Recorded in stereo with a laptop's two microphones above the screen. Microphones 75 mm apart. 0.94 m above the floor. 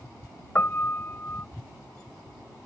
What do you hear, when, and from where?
0.6 s a piano: 30° left (ahead or behind)